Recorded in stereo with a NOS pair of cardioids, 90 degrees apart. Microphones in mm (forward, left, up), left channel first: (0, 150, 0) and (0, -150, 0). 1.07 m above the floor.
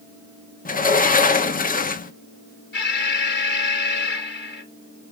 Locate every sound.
0.7 s a sliding door: 30° left, 0.9 m
2.7 s an alarm: 35° left, 3.5 m